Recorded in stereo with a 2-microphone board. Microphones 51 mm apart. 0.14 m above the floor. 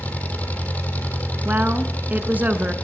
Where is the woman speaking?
35° right (ahead or behind), 1.4 m.